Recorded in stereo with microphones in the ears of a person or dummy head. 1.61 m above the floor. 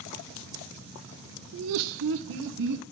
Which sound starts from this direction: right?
Laughter, at 1.5 s.